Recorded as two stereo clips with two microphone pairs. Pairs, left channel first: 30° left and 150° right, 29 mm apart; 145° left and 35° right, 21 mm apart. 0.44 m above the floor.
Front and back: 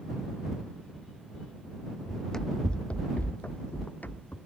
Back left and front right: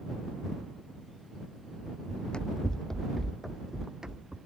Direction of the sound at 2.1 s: 110° left.